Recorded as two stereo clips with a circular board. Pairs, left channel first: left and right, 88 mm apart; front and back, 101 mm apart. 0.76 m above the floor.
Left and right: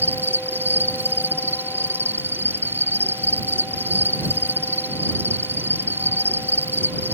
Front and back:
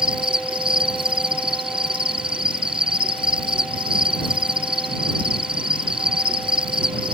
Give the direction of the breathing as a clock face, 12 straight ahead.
No breathing in this recording.